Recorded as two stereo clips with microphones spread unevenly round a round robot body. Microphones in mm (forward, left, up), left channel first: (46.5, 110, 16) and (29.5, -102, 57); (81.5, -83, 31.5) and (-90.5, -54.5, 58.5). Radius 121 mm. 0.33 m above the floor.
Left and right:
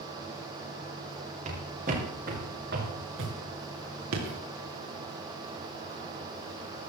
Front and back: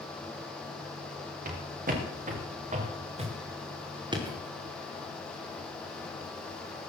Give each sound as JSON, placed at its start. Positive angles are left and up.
{"t": 1.4, "sound": "footsteps", "azimuth_deg": -155, "distance_m": 4.5}